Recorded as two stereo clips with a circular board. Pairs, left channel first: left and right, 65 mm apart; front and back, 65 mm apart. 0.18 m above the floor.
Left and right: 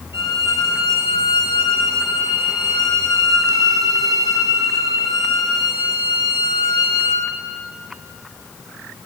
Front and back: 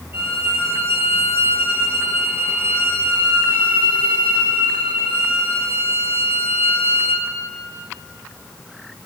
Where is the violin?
125° right, 3 m.